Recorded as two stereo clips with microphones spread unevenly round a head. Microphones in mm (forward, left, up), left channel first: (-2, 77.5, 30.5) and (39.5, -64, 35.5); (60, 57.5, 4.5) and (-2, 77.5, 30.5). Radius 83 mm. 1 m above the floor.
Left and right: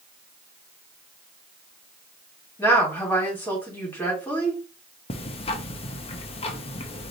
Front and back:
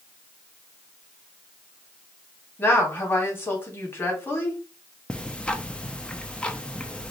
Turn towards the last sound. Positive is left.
turn(degrees=55)